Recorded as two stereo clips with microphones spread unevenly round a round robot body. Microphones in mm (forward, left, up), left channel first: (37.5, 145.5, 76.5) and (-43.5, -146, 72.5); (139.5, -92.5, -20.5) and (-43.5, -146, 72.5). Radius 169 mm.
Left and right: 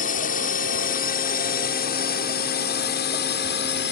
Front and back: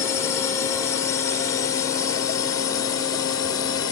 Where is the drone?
25° left; by 3.9 s 35° left.